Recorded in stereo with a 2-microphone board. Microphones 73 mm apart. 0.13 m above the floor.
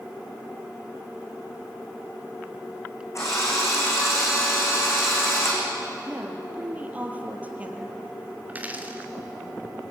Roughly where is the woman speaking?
Centre.